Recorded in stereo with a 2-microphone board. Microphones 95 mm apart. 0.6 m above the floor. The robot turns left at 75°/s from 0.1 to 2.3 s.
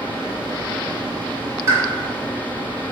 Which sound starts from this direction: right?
A pop, at 1.7 s.